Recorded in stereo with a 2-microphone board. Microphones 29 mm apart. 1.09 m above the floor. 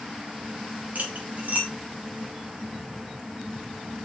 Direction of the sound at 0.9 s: 60° right (ahead or behind).